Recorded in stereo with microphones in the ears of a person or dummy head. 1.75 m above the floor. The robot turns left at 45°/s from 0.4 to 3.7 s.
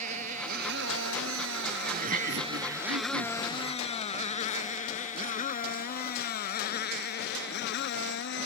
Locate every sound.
0.0 s a motorcycle: 45° right (ahead or behind); by 8.5 s 65° left (ahead or behind)
1.9 s laughter: 40° right; by 4.0 s 120° right